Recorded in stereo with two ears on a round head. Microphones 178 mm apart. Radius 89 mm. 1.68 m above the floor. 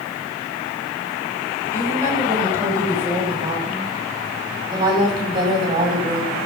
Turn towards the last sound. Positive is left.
turn(degrees=-25)  # may be behind; listen again after turning